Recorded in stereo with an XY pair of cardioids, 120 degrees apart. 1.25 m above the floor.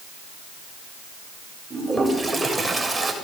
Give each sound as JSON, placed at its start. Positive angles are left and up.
{"t": 1.7, "sound": "a toilet flushing", "azimuth_deg": -10, "distance_m": 7.0}